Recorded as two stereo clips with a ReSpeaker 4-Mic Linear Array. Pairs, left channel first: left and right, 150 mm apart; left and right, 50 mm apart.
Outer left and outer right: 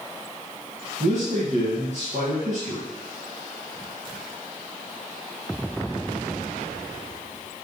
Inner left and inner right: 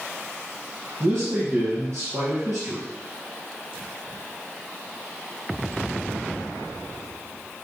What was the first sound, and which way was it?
A man speaking, 55° right (ahead or behind).